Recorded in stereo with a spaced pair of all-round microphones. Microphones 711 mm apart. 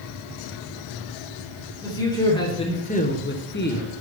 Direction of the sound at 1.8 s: 5° left (ahead or behind).